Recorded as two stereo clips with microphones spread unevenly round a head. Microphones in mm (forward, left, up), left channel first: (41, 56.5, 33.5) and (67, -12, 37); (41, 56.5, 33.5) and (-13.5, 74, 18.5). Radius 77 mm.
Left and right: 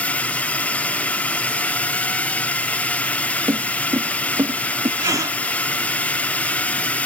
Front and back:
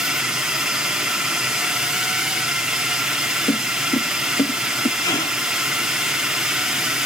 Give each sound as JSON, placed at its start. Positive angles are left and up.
{"t": 0.0, "sound": "a drone", "azimuth_deg": 140}
{"t": 3.5, "sound": "footsteps", "azimuth_deg": -15}
{"t": 5.0, "sound": "a gasp", "azimuth_deg": -30}